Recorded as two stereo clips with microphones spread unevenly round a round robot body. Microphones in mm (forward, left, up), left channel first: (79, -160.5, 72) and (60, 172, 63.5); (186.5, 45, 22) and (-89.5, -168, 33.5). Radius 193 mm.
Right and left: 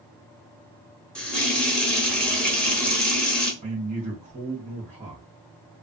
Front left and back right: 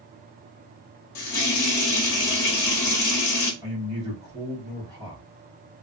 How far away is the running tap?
About 0.9 m.